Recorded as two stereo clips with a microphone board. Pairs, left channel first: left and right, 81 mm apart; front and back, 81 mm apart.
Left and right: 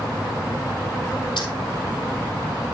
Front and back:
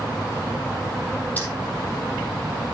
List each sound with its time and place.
1.4 s keys jangling: 70° left, 4 m